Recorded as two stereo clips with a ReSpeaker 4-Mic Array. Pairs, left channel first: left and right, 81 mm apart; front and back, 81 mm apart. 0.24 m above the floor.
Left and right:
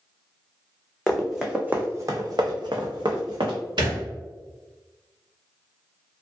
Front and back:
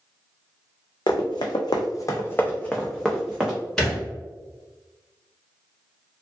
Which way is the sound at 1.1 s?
5° left.